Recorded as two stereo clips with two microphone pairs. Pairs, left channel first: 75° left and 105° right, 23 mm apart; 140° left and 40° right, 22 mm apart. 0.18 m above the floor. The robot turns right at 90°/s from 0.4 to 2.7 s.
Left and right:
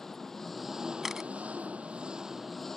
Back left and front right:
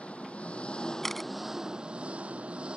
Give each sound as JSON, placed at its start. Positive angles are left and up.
{"t": 0.0, "sound": "an engine running", "azimuth_deg": 145}
{"t": 1.0, "sound": "a camera shutter", "azimuth_deg": -165}